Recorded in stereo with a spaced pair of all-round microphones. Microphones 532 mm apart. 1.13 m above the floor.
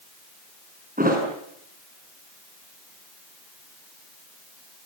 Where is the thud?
15° right (ahead or behind), 6.5 m.